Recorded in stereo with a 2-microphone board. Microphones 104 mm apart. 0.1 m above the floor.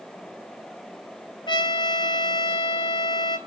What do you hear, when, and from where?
1.5 s a trumpet: 50° left (ahead or behind), 0.6 m